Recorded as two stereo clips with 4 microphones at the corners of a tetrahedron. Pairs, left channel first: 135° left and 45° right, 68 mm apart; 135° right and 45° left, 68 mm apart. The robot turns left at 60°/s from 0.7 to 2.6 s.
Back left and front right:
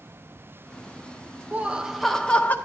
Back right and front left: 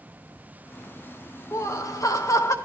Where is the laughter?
105° right, 0.7 m; by 2.5 s 170° right, 0.7 m.